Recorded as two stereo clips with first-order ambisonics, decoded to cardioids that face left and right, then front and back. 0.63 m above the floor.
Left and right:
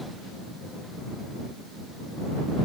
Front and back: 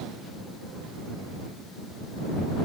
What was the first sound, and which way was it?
Only background noise.